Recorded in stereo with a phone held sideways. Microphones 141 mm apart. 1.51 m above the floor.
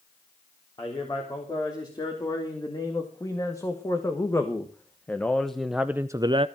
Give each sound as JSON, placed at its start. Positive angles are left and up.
{"t": 0.8, "sound": "a man speaking", "side_deg": 30, "distance_m": 3.5}